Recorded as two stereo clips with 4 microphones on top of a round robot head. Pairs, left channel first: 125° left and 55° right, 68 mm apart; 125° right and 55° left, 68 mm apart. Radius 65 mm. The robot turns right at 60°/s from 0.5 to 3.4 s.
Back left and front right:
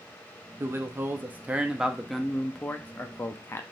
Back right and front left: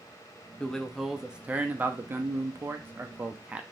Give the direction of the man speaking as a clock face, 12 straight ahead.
2 o'clock.